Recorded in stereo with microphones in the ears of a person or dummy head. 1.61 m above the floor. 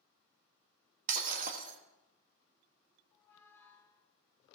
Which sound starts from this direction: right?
Breaking glass, at 1.1 s.